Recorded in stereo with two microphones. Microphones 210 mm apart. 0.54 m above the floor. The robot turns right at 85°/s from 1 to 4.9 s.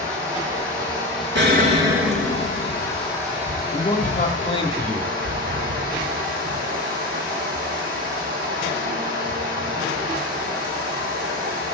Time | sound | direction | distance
0.0 | running water | 15° right | 4 m
1.4 | an explosion | 65° right | 1.3 m
3.7 | a man speaking | 65° left | 1.0 m